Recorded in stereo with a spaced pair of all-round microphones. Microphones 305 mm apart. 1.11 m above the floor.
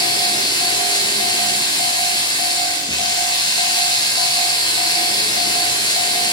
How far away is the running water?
About 7 m.